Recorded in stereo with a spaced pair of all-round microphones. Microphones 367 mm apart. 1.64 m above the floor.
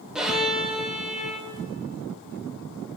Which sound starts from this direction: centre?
A violin, at 0.1 s.